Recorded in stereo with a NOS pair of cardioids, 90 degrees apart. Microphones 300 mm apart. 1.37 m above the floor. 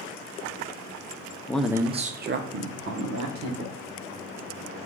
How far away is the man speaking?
About 0.6 m.